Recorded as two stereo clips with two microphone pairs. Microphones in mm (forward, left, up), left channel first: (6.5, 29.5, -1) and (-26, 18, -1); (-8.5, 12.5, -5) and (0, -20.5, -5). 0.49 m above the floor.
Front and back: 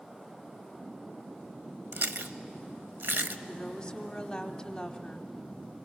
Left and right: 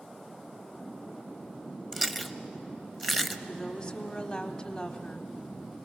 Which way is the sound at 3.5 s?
65° left.